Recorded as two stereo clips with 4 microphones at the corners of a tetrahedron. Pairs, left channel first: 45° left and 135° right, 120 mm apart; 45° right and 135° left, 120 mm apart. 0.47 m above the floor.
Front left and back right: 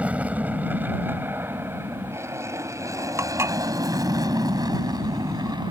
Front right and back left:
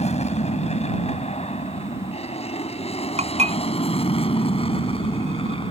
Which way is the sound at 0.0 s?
55° right.